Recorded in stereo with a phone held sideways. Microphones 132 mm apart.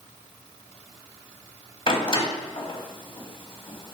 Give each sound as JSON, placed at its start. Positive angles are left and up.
{"t": 1.9, "sound": "a door slam", "side_deg": 40, "distance_m": 1.3}